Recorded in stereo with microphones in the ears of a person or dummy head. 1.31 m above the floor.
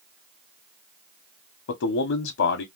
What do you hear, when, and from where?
1.7 s a man speaking: 70° left (ahead or behind), 0.6 m